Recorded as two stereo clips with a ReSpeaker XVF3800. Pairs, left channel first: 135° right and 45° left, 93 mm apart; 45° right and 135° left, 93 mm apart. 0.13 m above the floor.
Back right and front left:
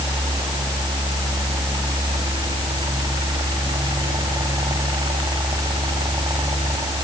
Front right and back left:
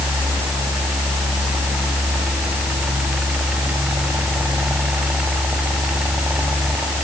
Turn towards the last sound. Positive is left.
No sound to turn to.